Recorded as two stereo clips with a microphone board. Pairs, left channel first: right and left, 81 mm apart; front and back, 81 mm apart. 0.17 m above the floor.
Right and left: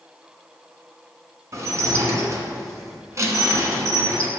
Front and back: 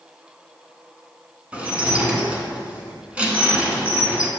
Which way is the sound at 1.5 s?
115° left.